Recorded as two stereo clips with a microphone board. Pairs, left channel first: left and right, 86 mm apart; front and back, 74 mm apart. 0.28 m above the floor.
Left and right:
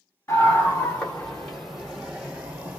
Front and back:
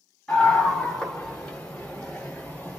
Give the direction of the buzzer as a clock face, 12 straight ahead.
No buzzer in this recording.